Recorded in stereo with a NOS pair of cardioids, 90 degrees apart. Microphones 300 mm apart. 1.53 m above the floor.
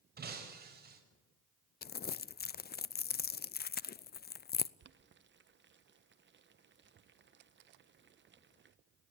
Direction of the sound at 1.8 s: 30° left.